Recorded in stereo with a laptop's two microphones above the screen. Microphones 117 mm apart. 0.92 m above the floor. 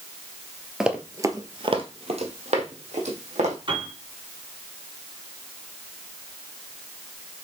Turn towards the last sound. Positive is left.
turn(degrees=-50)  # may be behind; listen again after turning